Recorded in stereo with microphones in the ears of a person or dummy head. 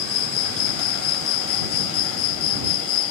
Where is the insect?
85° left.